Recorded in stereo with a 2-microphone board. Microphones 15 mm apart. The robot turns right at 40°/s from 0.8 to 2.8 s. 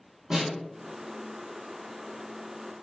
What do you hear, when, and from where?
0.3 s a snare drum: 50° right (ahead or behind), 1.2 m